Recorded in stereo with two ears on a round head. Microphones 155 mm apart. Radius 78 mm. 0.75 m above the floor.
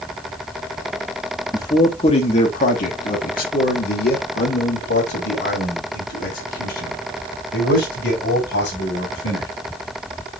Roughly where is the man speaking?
Left.